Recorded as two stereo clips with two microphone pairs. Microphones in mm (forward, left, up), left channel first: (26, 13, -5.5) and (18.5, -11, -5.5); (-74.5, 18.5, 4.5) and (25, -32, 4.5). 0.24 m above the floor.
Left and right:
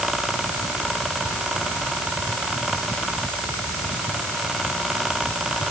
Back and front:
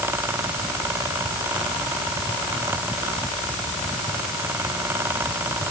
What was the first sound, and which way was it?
Only background noise.